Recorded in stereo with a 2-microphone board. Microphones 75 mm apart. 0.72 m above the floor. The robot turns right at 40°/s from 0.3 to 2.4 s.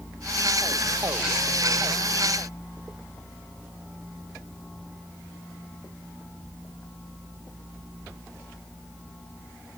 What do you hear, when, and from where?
Only background noise.